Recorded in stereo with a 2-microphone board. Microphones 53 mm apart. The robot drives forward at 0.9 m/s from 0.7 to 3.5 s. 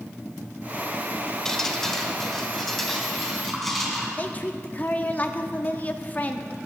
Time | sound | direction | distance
1.4 | dripping | 10° left (ahead or behind) | 0.9 m
4.2 | a woman speaking | 30° left (ahead or behind) | 0.8 m